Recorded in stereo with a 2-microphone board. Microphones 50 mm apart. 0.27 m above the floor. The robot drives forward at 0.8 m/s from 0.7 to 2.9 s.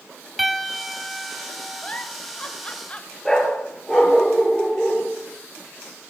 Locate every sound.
0.4 s a piano: 5° right (ahead or behind), 0.6 m; by 2.0 s centre (ahead or behind), 1.7 m
1.8 s a giggle: 25° left (ahead or behind), 1.1 m; by 3.1 s 20° left (ahead or behind), 1.3 m
3.2 s a dog barking: 10° left (ahead or behind), 2.5 m